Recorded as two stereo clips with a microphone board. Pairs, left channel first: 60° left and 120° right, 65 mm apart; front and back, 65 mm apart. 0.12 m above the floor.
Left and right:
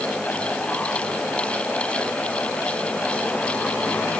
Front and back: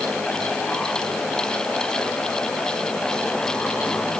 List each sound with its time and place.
Only background noise.